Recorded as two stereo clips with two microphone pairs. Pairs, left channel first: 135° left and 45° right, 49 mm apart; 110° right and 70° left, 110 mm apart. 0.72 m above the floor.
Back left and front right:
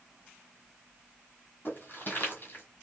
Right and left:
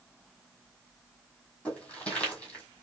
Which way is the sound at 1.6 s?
175° left.